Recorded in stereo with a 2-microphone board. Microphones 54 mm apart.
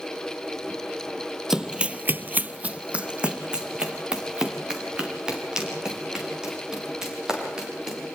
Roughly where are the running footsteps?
Centre.